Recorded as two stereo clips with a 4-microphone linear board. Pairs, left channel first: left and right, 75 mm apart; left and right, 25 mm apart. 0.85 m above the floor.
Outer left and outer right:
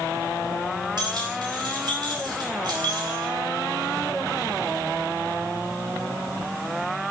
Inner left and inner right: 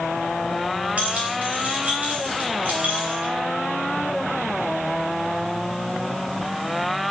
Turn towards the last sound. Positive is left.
turn(degrees=-75)  # may be behind; listen again after turning